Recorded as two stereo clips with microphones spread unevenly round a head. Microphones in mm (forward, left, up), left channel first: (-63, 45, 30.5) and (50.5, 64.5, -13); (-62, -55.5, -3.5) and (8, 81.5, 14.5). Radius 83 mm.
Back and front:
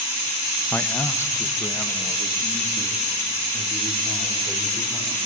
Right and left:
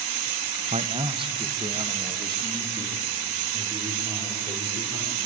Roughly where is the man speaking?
Behind left.